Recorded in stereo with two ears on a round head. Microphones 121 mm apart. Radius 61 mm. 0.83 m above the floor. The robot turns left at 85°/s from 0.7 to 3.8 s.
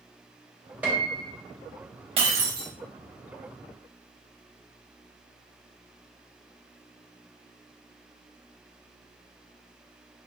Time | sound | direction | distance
0.8 | a piano | 10° right (ahead or behind) | 0.6 m
2.2 | breaking glass | 45° right | 0.8 m